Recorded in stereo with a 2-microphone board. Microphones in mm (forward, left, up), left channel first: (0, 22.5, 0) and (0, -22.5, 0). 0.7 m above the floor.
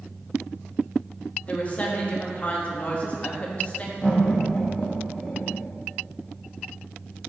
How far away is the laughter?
About 1.1 m.